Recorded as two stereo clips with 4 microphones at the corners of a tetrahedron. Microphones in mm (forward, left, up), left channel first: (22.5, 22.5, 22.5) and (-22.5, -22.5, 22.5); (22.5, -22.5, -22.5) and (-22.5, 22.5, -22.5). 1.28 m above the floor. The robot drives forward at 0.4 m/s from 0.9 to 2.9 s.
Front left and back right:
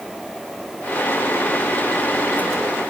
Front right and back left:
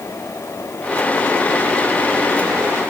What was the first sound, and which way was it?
Only background noise.